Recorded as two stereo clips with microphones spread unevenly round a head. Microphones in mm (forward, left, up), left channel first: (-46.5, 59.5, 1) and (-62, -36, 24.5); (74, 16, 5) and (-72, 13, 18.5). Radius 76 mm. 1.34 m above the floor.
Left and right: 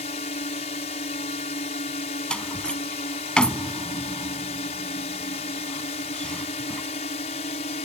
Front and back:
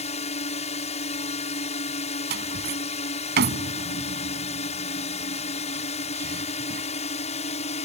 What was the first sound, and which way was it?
A drone, 45° left.